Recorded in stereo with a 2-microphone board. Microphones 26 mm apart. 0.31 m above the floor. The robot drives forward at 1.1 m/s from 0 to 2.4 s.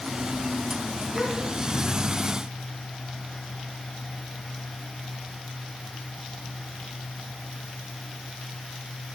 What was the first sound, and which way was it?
A gasp, 25° left (ahead or behind).